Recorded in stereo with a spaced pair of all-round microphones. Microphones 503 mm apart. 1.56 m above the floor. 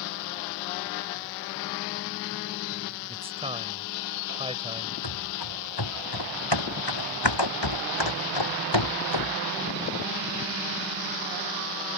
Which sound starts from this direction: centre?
A man speaking, at 3.1 s.